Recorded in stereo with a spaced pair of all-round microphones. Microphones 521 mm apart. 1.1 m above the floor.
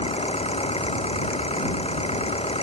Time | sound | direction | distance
0.0 | an engine running | 10° left (ahead or behind) | ?